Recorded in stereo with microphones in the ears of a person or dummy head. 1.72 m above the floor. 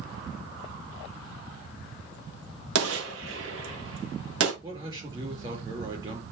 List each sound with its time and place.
2.8 s a gunshot: 85° right, 2 m
4.6 s a man speaking: 30° right (ahead or behind), 5.5 m